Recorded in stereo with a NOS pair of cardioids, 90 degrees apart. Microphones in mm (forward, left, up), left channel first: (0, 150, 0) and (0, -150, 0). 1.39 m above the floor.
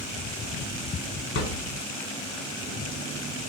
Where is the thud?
55° left, 2.5 m.